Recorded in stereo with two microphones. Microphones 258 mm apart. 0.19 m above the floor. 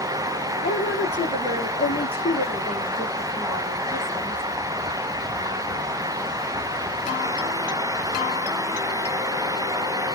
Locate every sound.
0.6 s a woman speaking: 25° left (ahead or behind), 7 m; by 4.4 s 15° left (ahead or behind), 9.5 m